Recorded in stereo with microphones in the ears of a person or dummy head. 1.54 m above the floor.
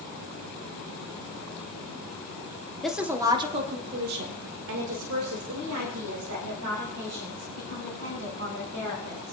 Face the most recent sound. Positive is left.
turn(degrees=-85)